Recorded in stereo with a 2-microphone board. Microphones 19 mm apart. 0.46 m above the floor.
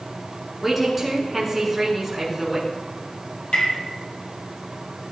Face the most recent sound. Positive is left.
turn(degrees=70)  # may be behind; listen again after turning